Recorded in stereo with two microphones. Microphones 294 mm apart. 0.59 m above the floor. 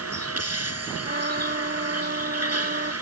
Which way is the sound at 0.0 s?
60° right (ahead or behind).